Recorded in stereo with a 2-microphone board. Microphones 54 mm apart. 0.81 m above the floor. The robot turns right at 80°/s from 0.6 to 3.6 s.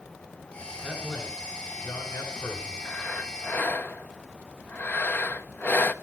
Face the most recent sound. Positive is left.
turn(degrees=105)